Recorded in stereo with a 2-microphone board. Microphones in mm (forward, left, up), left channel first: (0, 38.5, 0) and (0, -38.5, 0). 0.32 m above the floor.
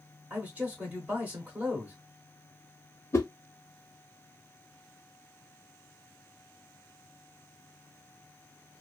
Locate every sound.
0.3 s a man speaking: 15° right (ahead or behind), 0.9 m
3.1 s a whoosh: 35° left (ahead or behind), 0.6 m